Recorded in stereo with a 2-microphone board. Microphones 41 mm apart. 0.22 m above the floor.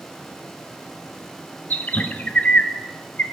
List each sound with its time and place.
1.7 s a bird: 40° left (ahead or behind), 0.7 m